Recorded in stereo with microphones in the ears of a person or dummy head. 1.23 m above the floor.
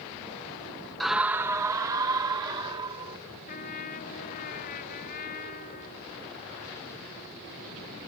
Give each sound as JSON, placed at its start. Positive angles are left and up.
{"t": 1.0, "sound": "a scream", "side_deg": 0}
{"t": 3.5, "sound": "a trumpet", "side_deg": 45}